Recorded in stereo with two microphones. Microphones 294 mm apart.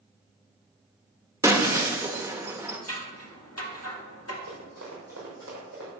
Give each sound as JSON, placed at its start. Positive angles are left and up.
{"t": 1.4, "sound": "breaking glass", "side_deg": -10, "distance_m": 1.1}
{"t": 2.9, "sound": "scissors", "side_deg": 55, "distance_m": 1.8}
{"t": 4.5, "sound": "running footsteps", "side_deg": -60, "distance_m": 4.0}